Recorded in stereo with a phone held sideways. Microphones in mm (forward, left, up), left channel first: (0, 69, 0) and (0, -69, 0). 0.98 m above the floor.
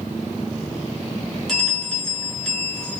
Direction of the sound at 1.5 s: 5° left (ahead or behind).